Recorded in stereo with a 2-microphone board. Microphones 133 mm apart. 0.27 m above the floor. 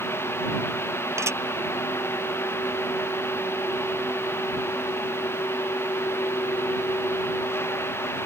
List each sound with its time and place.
1.2 s dishes clattering: 20° right (ahead or behind)